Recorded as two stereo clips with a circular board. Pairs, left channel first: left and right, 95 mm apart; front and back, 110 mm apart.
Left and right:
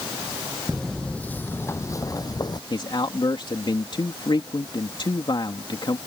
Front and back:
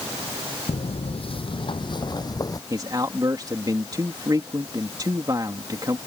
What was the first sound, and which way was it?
Footsteps, 5° left.